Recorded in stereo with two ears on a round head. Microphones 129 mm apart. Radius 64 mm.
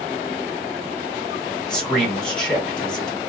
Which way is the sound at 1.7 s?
5° left (ahead or behind).